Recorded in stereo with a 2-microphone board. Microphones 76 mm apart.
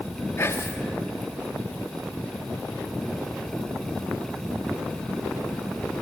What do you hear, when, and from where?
0.4 s whispering: 35° left (ahead or behind), 0.8 m